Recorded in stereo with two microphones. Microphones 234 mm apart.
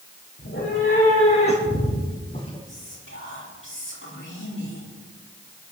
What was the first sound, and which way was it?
A cat meowing, 55° left (ahead or behind).